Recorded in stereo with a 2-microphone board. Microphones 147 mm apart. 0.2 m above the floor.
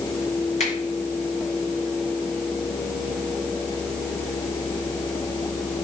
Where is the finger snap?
50° left (ahead or behind), 3.5 m.